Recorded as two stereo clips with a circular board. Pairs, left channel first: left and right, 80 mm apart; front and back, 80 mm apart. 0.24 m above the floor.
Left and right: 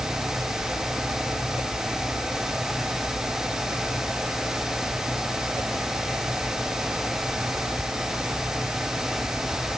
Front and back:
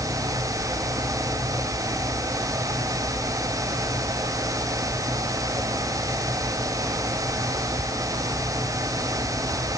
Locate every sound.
Only background noise.